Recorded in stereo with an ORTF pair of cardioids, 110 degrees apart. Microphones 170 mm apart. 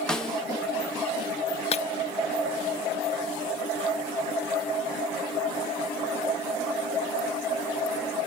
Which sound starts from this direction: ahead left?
Breaking glass, at 1.7 s.